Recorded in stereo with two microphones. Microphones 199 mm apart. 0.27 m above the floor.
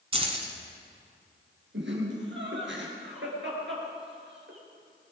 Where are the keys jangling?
30° right (ahead or behind), 1.7 m.